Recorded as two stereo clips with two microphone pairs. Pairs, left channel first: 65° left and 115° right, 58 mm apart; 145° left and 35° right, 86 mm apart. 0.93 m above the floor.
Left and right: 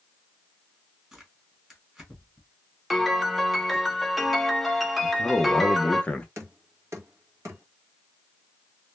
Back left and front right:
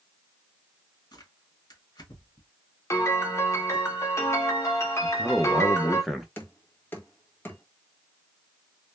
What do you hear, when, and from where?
1.1 s tearing paper: 165° left, 1.3 m
2.9 s a piano: 160° left, 0.6 m
5.0 s a man speaking: 55° left, 0.5 m
6.4 s knocking: 150° right, 0.9 m